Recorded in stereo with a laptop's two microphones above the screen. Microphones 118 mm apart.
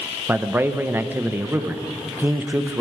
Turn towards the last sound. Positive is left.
turn(degrees=-15)  # may be behind; listen again after turning